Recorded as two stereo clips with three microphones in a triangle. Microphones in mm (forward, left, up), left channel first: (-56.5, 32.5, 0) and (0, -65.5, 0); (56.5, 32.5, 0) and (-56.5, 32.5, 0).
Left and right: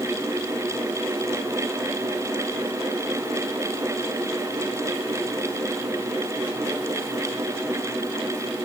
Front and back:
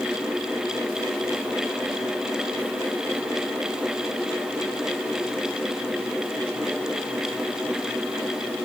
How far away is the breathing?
I don't hear breathing.